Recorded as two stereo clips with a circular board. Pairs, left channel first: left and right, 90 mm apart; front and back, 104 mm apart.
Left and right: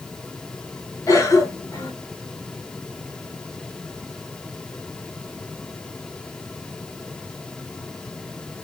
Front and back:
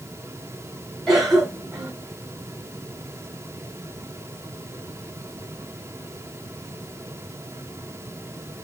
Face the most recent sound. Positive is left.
turn(degrees=95)